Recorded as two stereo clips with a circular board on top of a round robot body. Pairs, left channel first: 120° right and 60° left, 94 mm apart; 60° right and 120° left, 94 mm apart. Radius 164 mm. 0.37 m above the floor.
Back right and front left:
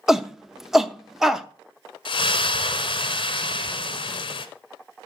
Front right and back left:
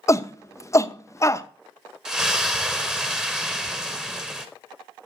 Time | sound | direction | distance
0.1 | a shout | 25° right | 0.9 m
2.0 | a splash | 155° right | 0.9 m